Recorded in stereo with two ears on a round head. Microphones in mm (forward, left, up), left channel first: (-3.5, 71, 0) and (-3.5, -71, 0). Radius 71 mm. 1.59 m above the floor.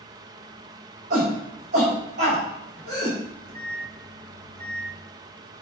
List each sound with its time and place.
1.1 s a shout: 55° right (ahead or behind), 5 m
3.2 s a microwave: 50° right (ahead or behind), 3 m